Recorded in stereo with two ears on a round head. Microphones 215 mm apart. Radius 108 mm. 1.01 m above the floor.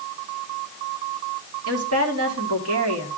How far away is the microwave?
I don't hear a microwave.